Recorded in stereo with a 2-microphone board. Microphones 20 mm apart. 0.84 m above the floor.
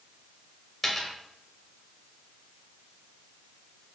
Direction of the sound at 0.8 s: 15° left (ahead or behind).